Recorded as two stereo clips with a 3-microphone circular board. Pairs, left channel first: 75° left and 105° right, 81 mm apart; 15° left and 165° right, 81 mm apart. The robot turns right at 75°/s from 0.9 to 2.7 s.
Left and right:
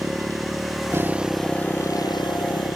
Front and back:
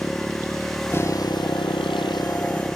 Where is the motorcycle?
50° right; by 2.8 s 85° left.